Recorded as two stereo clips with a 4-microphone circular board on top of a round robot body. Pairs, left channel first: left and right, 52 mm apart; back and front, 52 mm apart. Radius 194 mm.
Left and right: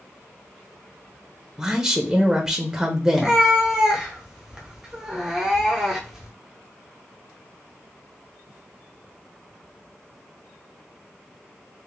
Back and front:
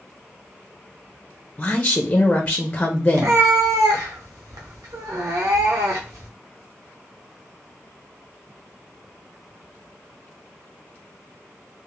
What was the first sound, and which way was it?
A woman speaking, 150° right.